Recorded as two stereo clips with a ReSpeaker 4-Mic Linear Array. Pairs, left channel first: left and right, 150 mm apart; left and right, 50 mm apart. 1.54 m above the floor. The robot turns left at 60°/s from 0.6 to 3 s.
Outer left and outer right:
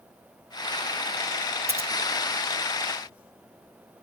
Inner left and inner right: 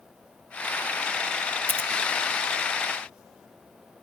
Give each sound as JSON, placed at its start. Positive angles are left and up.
{"t": 1.7, "sound": "scissors", "side_deg": -40, "distance_m": 1.1}